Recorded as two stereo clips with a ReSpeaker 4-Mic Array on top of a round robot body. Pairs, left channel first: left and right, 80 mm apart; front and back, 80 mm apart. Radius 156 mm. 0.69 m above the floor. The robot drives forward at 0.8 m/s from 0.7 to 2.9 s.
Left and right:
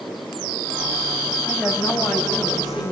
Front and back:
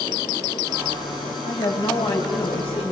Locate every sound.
1.4 s a woman speaking: 5° right, 6 m